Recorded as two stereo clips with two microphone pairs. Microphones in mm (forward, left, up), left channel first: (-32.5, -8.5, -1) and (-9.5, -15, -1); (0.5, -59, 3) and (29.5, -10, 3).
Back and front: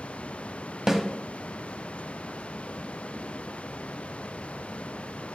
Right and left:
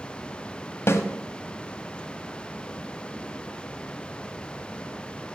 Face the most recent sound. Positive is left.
turn(degrees=-90)